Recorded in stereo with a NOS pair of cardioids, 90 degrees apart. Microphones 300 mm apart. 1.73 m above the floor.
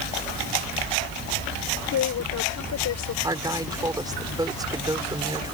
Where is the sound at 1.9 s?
65° left.